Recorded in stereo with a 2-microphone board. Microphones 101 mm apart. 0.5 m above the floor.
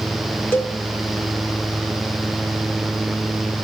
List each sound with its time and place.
0.5 s a cowbell: 20° left (ahead or behind), 1.3 m